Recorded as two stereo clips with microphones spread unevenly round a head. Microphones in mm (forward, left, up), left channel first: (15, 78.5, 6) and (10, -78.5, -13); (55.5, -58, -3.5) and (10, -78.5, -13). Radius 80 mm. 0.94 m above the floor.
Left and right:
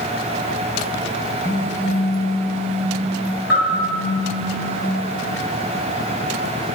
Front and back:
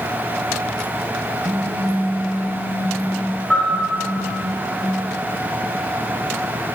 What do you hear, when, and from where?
1.4 s a phone buzzing: 165° left, 2 m
3.5 s a bell: 110° left, 4 m